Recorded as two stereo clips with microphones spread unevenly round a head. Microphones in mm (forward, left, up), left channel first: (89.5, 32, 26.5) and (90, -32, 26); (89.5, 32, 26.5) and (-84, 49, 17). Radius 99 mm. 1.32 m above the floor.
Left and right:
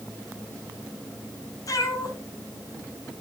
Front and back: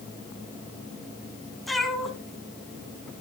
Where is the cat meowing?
80° left, 2 m.